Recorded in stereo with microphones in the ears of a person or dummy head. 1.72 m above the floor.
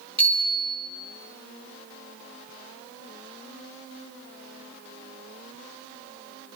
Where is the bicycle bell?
10° left (ahead or behind), 4.5 m.